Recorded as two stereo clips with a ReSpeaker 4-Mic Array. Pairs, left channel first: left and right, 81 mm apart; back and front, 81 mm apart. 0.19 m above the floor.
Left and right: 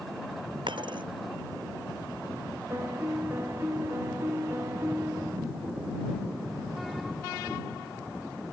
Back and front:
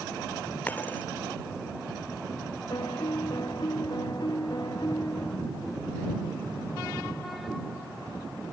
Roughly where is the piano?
Behind right.